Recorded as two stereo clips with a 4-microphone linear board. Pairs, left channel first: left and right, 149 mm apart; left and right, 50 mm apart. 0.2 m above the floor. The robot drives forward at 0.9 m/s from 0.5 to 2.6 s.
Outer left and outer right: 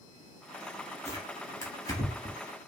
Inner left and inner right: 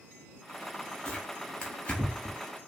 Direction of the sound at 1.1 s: 15° left (ahead or behind).